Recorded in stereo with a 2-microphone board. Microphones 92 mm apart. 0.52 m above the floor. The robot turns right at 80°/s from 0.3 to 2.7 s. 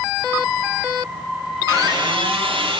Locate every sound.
1.7 s a squeak: 150° right, 7.5 m; by 2.8 s 70° right, 7.5 m